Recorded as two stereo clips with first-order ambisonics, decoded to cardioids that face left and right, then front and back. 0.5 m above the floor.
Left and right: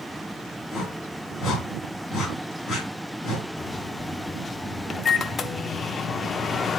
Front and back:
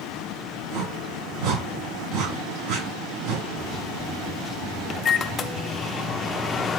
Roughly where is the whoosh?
Behind.